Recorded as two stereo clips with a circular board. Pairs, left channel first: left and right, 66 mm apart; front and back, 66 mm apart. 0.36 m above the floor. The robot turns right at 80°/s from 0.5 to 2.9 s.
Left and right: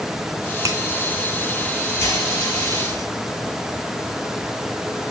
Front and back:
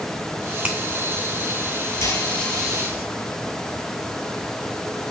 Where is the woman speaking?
No woman speaking in this recording.